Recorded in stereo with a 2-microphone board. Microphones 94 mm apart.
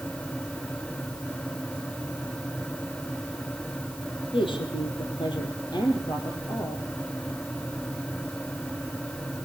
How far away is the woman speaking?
About 4 m.